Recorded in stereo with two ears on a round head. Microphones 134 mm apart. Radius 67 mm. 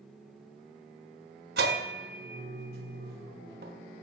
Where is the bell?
70° right (ahead or behind), 0.6 m.